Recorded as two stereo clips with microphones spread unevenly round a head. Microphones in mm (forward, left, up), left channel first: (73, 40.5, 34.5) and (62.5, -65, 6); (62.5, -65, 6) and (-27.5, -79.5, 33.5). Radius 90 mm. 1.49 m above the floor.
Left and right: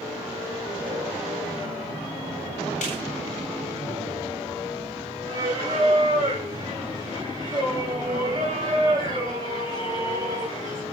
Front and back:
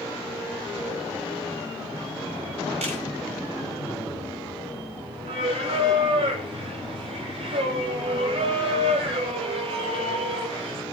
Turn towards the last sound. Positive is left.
turn(degrees=-170)